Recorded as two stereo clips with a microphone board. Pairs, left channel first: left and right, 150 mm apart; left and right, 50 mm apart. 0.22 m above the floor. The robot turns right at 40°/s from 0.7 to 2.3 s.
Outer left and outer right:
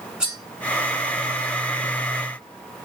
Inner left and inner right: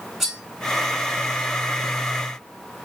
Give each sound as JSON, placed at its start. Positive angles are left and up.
{"t": 0.2, "sound": "cutlery clinking", "side_deg": -5, "distance_m": 1.2}